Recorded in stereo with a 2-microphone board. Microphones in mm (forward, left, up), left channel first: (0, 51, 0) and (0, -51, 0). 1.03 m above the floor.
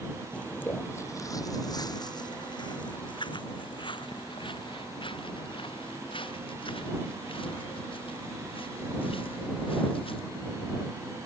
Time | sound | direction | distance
0.3 | footsteps | 10° left (ahead or behind) | ?